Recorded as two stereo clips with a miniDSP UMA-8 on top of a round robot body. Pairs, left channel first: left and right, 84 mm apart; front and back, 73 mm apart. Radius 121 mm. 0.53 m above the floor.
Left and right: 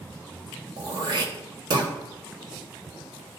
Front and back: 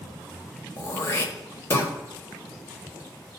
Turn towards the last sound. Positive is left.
turn(degrees=-55)